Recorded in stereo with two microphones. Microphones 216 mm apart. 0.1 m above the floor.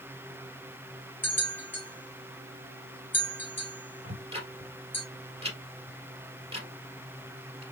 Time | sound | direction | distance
1.2 | a bell | 10° left (ahead or behind) | 1.6 m
4.0 | ticking | 30° right (ahead or behind) | 1.7 m